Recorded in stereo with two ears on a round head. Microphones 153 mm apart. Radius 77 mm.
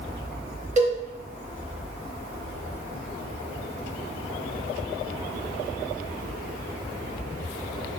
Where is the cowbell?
45° right (ahead or behind), 0.9 m.